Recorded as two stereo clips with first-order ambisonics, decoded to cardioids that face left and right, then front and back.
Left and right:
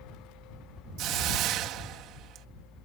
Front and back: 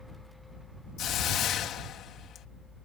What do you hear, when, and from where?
1.0 s a hiss: 50° right